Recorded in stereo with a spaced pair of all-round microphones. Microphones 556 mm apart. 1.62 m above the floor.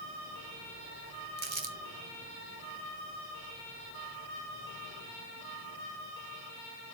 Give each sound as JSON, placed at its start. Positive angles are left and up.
{"t": 1.4, "sound": "crumpling", "side_deg": -55, "distance_m": 1.1}